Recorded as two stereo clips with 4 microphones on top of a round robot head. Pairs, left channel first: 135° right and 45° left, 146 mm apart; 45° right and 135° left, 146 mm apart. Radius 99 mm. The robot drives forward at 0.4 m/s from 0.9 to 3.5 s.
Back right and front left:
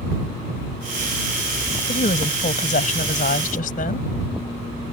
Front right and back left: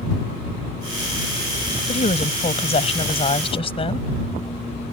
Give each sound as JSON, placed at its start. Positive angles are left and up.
{"t": 1.9, "sound": "a woman speaking", "azimuth_deg": -90}